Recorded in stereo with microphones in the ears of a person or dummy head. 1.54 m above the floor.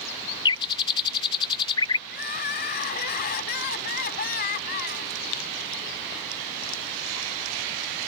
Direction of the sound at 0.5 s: 25° left (ahead or behind).